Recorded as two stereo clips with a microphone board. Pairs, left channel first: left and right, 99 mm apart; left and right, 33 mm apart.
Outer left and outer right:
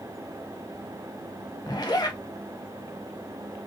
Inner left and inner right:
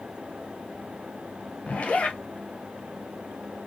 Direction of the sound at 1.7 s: 45° left (ahead or behind).